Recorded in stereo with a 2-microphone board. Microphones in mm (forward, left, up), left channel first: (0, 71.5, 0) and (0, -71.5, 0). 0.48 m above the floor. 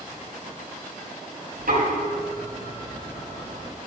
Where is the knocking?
80° right, 6 m.